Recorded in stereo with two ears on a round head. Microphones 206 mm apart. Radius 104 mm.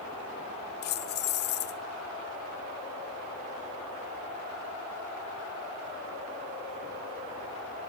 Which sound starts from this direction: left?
Keys jangling, at 0.8 s.